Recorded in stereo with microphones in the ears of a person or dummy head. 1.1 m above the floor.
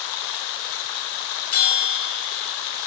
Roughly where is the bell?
Left.